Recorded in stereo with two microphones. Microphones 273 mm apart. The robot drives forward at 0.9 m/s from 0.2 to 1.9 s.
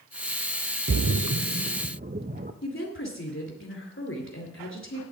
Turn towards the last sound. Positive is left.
turn(degrees=50)  # may be behind; listen again after turning